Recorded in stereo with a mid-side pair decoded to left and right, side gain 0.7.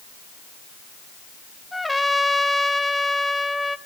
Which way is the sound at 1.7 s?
5° left.